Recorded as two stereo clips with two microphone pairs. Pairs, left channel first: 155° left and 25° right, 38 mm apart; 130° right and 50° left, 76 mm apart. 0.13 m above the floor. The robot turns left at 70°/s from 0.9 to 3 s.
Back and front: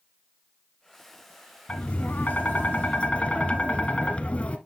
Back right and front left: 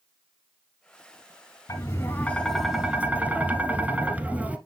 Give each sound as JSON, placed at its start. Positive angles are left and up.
{"t": 1.7, "sound": "tapping", "azimuth_deg": -160, "distance_m": 0.9}